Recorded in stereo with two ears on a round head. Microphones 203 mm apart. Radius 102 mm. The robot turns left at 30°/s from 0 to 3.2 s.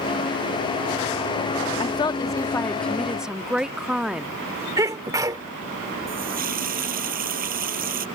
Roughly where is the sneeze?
Centre.